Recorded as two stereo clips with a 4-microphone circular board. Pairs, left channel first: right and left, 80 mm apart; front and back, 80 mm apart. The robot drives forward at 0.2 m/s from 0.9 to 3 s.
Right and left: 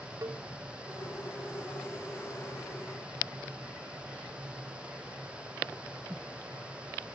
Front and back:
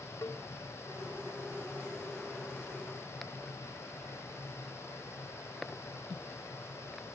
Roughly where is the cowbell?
Ahead left.